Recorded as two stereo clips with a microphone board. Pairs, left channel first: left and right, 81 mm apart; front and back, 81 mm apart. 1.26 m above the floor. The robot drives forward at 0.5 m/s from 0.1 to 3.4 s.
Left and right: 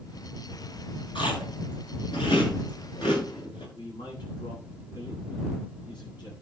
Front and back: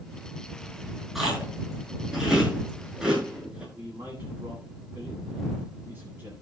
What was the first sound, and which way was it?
Chewing, 90° left.